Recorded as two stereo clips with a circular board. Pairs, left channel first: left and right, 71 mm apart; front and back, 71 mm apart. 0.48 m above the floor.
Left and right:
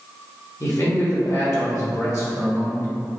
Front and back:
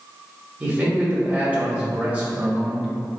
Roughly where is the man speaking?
Behind left.